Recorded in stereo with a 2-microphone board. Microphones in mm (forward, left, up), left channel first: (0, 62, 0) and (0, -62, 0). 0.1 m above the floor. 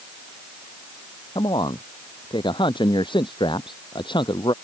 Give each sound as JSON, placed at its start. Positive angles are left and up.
{"t": 1.4, "sound": "a man speaking", "side_deg": 40}